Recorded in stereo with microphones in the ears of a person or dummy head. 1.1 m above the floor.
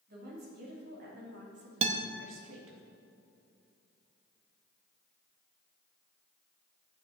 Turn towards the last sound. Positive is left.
turn(degrees=-35)  # may be behind; listen again after turning